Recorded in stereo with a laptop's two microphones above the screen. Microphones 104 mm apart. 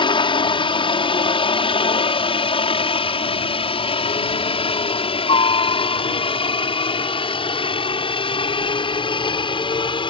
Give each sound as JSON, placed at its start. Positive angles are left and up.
{"t": 0.0, "sound": "a helicopter", "side_deg": 55}